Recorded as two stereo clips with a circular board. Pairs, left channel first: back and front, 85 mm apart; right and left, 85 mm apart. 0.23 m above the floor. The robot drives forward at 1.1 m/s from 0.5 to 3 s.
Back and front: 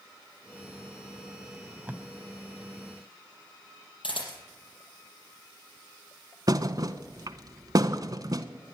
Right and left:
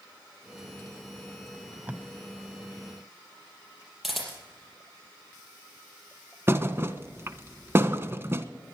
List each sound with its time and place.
1.5 s tape being pulled: 25° left, 1.2 m; by 2.0 s 65° left, 0.9 m
4.0 s a camera shutter: straight behind, 5.5 m
6.5 s a thud: 35° left, 0.8 m